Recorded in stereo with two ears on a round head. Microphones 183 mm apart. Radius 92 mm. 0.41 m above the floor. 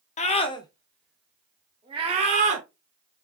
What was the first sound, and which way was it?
A scream, 35° left (ahead or behind).